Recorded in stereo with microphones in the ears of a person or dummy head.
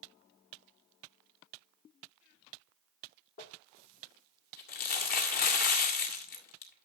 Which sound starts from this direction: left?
Crumpling, at 3.4 s.